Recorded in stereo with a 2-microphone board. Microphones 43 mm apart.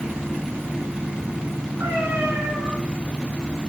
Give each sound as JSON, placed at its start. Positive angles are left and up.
{"t": 1.8, "sound": "a cat meowing", "side_deg": -80, "distance_m": 6.5}